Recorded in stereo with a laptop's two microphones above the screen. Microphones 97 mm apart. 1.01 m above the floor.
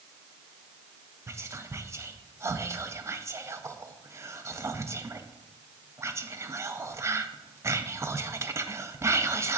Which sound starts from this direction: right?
Whispering, at 1.3 s.